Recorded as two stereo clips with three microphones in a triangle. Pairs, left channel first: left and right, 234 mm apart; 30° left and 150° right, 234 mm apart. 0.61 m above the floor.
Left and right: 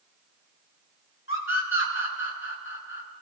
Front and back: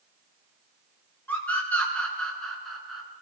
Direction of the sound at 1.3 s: 110° left.